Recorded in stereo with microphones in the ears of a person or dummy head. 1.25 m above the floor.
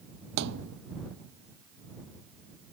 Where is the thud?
60° right (ahead or behind).